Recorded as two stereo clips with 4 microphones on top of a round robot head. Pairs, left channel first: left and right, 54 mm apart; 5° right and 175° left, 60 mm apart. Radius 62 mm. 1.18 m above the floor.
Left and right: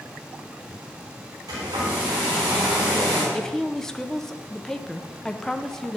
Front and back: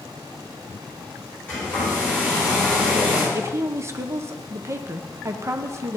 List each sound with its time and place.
1.5 s a hair dryer: 80° right, 4 m
3.3 s a woman speaking: 170° left, 0.6 m